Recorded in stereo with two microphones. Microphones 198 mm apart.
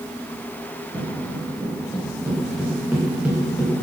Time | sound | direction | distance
0.9 | footsteps | 20° right (ahead or behind) | 7 m